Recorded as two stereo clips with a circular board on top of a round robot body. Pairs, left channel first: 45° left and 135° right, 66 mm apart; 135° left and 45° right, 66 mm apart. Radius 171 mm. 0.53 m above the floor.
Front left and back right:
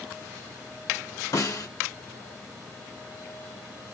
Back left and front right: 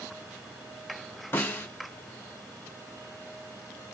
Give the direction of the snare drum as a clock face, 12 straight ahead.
9 o'clock.